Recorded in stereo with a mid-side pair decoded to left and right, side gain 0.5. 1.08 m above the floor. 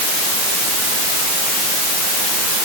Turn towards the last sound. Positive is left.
No sound to turn to.